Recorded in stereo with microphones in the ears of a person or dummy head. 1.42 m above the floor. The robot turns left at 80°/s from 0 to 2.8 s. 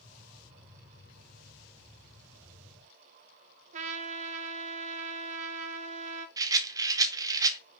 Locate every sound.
3.7 s a trumpet: 40° right (ahead or behind), 0.9 m
6.4 s a rattle: 20° right (ahead or behind), 0.8 m